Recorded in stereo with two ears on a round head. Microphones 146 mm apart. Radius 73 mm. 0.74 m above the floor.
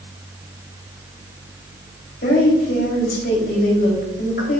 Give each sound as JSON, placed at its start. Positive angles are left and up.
{"t": 2.2, "sound": "a woman speaking", "side_deg": 70, "distance_m": 3.5}